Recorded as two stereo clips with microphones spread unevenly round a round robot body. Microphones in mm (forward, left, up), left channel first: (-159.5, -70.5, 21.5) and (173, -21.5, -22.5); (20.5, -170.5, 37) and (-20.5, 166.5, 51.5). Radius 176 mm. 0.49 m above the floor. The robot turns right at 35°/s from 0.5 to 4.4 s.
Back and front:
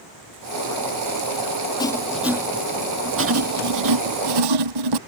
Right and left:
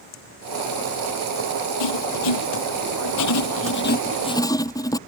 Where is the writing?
95° right; by 5.0 s 5° right.